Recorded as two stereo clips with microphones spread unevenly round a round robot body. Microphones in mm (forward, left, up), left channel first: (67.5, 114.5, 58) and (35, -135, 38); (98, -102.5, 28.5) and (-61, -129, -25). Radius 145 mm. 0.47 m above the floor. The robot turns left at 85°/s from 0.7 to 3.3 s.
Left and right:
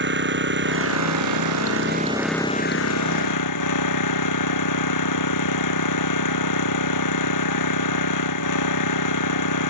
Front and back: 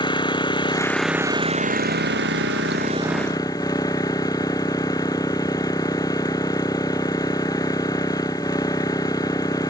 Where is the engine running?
50° right; by 9.7 s 85° left.